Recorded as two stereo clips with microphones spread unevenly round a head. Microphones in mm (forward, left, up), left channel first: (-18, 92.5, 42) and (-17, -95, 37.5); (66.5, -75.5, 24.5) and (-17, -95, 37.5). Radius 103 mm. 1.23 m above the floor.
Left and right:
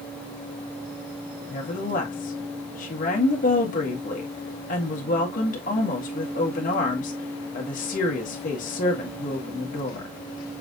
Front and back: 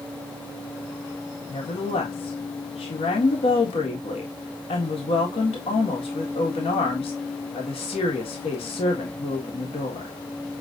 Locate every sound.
1.5 s a woman speaking: 40° left, 1.6 m